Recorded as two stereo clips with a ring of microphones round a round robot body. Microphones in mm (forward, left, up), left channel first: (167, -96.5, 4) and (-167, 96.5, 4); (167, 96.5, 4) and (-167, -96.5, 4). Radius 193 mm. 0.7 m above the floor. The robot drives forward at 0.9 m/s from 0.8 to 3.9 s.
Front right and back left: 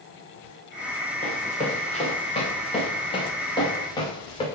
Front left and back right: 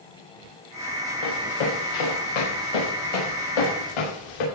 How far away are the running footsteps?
About 5.5 m.